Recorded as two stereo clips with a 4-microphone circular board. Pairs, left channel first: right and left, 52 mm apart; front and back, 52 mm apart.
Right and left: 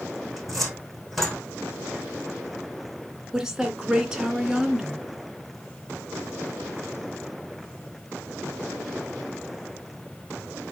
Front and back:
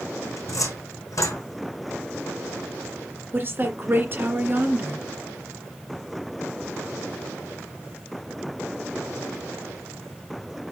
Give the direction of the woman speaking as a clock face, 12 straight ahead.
6 o'clock.